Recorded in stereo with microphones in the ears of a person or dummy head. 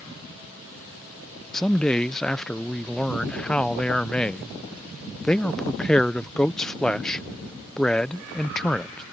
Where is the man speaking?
5° left (ahead or behind).